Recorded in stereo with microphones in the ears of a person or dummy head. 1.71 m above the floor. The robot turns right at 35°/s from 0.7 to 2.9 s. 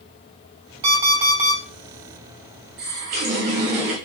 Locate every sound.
0.8 s an alarm clock: 40° right (ahead or behind), 2.0 m; by 1.6 s 15° right (ahead or behind), 2.0 m
2.8 s a running tap: 40° right (ahead or behind), 0.8 m